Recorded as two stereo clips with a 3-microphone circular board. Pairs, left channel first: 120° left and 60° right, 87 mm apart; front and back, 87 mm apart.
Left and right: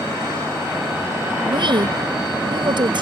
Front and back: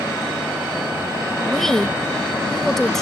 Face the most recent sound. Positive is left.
turn(degrees=-85)